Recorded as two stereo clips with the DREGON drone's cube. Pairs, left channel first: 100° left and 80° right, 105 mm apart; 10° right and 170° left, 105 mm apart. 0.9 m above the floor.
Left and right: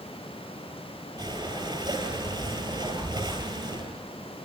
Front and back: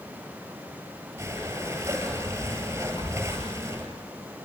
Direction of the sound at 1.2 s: 125° right.